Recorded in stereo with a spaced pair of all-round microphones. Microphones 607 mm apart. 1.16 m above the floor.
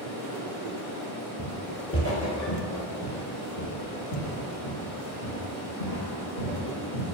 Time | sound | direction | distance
0.0 | running water | 25° left (ahead or behind) | 1.9 m
1.4 | footsteps | 10° left (ahead or behind) | 1.2 m